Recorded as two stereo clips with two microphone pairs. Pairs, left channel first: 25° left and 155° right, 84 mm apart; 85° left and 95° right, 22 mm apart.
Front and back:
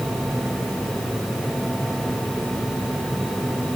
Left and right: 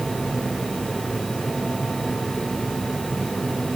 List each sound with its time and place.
Only background noise.